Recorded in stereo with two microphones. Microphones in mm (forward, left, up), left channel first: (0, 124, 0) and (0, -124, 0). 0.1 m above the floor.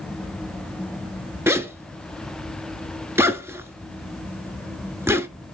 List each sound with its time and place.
1.5 s a zipper: 10° right (ahead or behind), 0.7 m